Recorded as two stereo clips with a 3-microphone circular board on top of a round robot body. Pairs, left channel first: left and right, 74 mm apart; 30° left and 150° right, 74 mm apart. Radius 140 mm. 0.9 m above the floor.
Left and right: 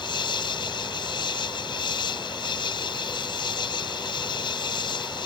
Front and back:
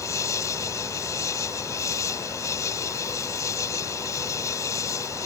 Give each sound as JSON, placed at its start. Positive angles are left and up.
{"t": 0.0, "sound": "an insect", "azimuth_deg": 80}